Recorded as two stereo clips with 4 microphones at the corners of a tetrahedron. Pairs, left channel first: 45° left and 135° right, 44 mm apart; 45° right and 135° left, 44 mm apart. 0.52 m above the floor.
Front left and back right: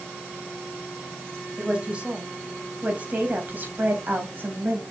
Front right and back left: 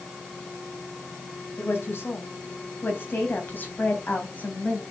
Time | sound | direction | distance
1.6 | a woman speaking | 70° right | 3 m